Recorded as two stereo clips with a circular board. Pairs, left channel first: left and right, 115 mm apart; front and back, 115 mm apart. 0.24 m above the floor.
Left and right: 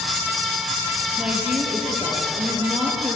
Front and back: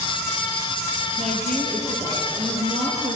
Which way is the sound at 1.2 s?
170° right.